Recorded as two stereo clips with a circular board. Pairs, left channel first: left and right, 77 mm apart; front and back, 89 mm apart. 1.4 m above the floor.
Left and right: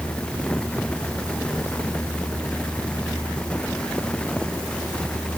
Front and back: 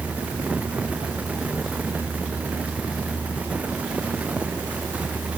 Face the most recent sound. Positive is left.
No sound to turn to.